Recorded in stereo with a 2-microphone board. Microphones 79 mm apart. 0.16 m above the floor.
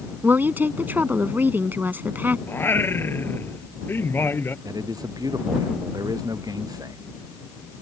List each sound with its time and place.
0.2 s a woman speaking: 25° right (ahead or behind)
2.5 s singing: 30° left (ahead or behind)
4.7 s a man speaking: 55° right (ahead or behind)